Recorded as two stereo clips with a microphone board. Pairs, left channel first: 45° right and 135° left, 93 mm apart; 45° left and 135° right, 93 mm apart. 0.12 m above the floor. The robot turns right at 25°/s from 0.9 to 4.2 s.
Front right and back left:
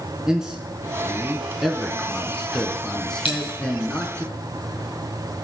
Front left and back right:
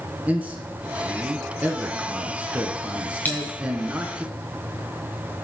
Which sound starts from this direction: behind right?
A man speaking, at 0.3 s.